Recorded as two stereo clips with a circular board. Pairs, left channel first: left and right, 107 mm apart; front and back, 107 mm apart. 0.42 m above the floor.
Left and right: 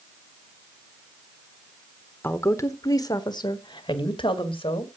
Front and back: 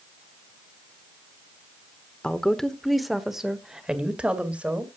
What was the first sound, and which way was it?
A woman speaking, 65° left.